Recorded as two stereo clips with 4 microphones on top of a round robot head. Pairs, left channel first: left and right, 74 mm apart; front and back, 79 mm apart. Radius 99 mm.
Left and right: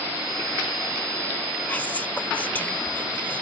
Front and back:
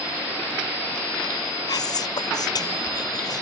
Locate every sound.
1.7 s whispering: 25° left